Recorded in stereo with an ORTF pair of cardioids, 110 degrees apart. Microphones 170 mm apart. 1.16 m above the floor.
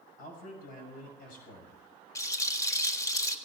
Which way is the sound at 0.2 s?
55° left.